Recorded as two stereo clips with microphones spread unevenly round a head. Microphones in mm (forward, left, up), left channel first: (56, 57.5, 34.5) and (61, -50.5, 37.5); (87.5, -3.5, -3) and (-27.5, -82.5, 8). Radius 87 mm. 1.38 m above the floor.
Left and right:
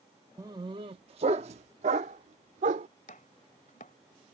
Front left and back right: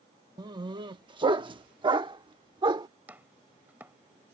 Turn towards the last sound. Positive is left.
turn(degrees=140)